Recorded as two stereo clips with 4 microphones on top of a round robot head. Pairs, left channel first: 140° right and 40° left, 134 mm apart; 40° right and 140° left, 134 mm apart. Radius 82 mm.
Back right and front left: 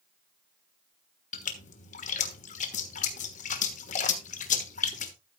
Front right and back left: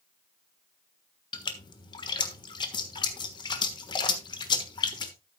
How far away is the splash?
About 1.3 m.